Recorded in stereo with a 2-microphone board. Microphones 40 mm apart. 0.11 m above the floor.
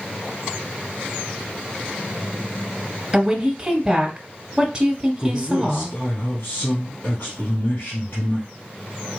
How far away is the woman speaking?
About 1.8 m.